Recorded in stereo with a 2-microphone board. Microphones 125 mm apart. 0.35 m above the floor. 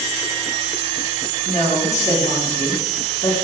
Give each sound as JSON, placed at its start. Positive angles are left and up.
{"t": 1.4, "sound": "a woman speaking", "side_deg": 65, "distance_m": 4.5}